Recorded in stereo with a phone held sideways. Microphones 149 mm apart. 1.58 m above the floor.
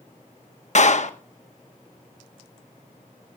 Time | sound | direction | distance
0.8 | a clap | 55° left (ahead or behind) | 1.2 m